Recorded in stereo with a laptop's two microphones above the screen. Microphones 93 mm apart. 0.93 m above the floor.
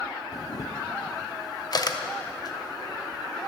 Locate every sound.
0.3 s a camera shutter: 45° left (ahead or behind), 0.5 m